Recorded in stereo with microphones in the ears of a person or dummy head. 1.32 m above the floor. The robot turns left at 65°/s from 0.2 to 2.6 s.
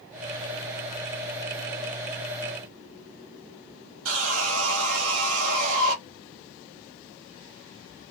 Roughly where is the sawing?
Right.